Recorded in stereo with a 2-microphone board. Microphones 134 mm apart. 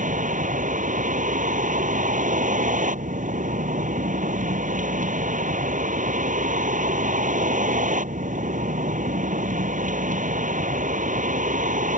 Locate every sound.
0.0 s a vehicle: 75° right (ahead or behind)